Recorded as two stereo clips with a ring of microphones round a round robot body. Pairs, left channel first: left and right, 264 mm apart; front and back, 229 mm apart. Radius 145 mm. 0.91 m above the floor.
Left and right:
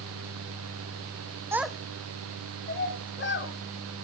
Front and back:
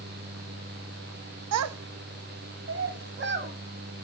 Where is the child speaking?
170° right, 0.8 m; by 3.5 s 135° left, 2 m.